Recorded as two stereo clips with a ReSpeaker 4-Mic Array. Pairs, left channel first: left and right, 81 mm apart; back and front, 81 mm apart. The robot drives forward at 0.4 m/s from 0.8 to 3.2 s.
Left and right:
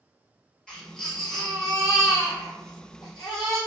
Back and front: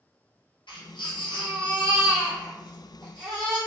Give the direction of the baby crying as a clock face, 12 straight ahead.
6 o'clock.